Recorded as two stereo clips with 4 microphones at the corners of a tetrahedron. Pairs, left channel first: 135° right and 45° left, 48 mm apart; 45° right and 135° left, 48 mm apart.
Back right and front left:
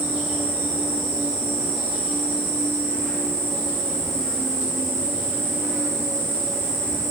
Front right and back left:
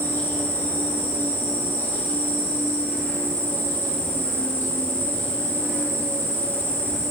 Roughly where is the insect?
Ahead right.